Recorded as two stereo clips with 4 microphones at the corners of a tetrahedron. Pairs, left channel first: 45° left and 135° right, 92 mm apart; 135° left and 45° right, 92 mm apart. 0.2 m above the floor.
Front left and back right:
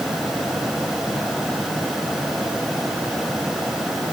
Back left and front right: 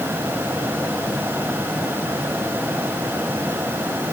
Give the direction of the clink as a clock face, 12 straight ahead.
I don't hear a clink.